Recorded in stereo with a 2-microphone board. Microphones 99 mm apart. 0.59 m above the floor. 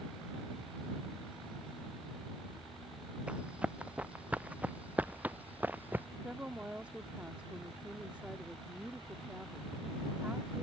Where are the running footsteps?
10° right (ahead or behind); by 6.1 s 15° right (ahead or behind).